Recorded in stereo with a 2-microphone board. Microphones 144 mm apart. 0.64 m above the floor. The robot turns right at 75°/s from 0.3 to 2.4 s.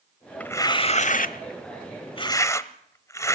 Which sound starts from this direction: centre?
Tearing paper, at 0.4 s.